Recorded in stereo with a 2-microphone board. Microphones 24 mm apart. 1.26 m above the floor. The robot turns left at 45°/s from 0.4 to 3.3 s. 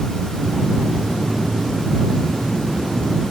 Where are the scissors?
No scissors in this recording.